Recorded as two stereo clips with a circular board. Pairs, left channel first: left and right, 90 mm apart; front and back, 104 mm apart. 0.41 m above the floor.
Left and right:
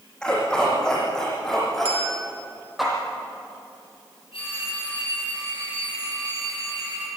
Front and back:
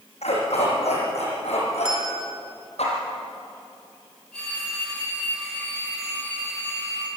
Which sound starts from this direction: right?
A bell, at 1.9 s.